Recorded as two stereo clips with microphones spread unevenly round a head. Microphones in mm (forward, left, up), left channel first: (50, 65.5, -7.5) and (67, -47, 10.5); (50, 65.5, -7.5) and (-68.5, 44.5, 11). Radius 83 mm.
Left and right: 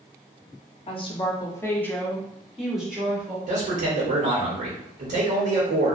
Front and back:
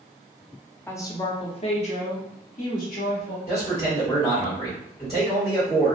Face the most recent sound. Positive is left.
turn(degrees=-65)